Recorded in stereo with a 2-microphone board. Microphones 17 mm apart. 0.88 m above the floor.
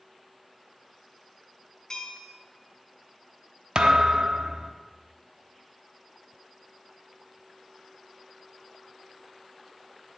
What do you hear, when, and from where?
1.9 s a bell: 55° left (ahead or behind), 1.6 m
3.8 s a thud: 55° right (ahead or behind), 0.7 m